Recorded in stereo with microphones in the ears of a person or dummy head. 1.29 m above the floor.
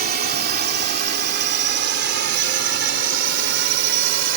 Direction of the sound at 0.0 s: 50° right (ahead or behind).